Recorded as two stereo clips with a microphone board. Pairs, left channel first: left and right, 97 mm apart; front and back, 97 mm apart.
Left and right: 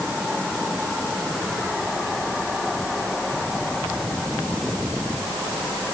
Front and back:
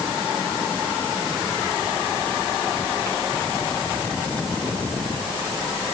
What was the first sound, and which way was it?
Only background noise.